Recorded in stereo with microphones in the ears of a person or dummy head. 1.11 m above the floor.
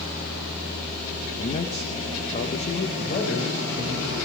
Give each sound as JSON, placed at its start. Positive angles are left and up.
{"t": 1.4, "sound": "a man speaking", "side_deg": 35, "distance_m": 0.8}
{"t": 3.0, "sound": "a man speaking", "side_deg": 50, "distance_m": 4.5}